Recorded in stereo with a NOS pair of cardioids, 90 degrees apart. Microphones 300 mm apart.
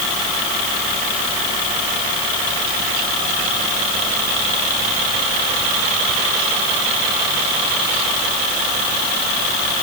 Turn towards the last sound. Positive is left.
No sound to turn to.